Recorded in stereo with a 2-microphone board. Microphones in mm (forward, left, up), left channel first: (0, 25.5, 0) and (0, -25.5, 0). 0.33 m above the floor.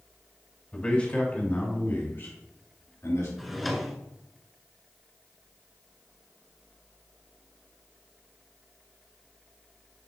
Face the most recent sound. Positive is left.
turn(degrees=0)  # may be behind; listen again after turning